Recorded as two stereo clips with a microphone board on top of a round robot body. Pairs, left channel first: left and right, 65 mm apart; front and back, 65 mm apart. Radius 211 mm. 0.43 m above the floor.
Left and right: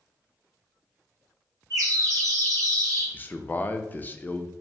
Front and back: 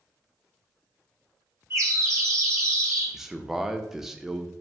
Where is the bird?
135° right, 1.1 m.